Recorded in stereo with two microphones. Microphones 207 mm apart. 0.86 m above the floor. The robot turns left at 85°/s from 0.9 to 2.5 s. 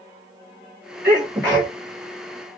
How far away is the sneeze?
About 1.3 m.